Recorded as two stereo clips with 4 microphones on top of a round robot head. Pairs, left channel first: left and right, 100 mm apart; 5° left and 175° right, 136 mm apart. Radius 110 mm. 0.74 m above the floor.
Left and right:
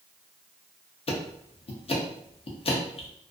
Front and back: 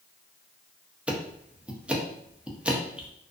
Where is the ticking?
100° left, 0.6 m.